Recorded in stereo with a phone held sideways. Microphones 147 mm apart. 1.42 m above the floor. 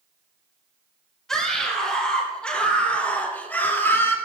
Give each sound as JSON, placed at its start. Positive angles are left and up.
{"t": 1.3, "sound": "a scream", "side_deg": 5, "distance_m": 5.5}